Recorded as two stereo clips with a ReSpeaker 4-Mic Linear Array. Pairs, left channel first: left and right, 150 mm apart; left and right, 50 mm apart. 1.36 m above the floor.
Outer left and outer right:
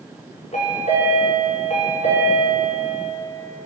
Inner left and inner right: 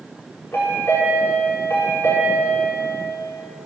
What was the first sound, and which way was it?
A chime, 50° left (ahead or behind).